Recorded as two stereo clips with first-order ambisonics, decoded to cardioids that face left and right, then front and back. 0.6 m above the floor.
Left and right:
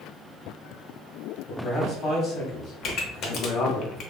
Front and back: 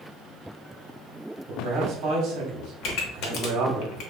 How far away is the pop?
About 0.5 m.